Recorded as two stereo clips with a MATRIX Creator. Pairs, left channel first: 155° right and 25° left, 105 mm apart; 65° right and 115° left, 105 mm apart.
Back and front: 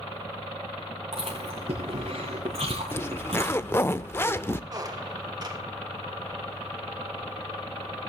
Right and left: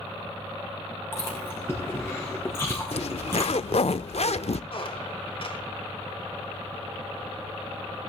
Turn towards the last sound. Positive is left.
turn(degrees=-30)